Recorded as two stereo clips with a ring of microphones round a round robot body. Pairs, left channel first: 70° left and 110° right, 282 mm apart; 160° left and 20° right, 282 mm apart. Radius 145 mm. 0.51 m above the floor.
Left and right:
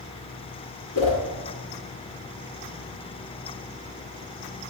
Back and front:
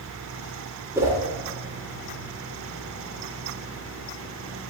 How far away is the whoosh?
About 2 m.